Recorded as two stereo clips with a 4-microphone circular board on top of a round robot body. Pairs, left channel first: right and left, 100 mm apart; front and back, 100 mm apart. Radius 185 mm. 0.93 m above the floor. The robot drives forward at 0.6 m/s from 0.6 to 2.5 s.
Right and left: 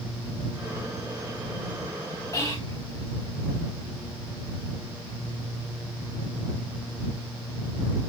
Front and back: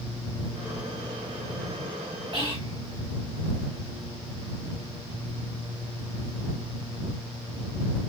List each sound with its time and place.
2.3 s whispering: 150° right, 3 m